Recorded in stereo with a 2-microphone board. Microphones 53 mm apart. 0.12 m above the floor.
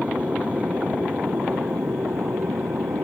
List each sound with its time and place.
0.0 s an aircraft: 25° right (ahead or behind); by 3.0 s 60° right (ahead or behind)